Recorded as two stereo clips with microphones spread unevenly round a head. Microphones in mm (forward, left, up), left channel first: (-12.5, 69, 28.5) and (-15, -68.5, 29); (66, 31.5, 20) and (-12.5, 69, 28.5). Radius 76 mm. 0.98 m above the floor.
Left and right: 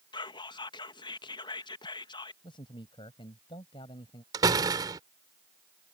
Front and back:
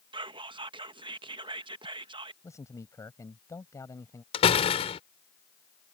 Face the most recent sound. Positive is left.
turn(degrees=-25)